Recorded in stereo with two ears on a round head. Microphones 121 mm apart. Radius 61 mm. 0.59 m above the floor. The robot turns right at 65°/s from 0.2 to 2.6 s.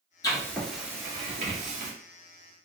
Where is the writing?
30° left (ahead or behind), 2 m; by 1.9 s 75° right (ahead or behind), 2 m.